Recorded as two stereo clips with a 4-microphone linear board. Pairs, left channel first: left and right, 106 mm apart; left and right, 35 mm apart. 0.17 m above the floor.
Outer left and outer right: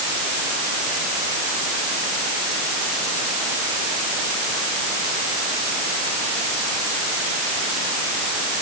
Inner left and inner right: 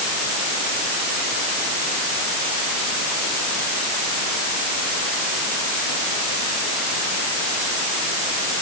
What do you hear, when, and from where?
Only background noise.